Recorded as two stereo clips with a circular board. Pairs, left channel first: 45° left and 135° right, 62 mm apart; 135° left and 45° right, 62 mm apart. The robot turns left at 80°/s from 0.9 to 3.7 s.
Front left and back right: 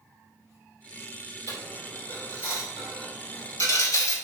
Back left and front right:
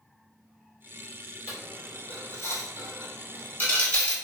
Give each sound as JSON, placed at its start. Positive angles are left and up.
{"t": 1.5, "sound": "a dropped coin", "azimuth_deg": -115, "distance_m": 1.4}